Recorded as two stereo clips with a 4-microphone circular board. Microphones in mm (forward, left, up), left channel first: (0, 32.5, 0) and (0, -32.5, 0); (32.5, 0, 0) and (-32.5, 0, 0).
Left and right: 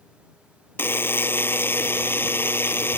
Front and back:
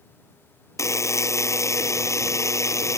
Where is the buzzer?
35° left.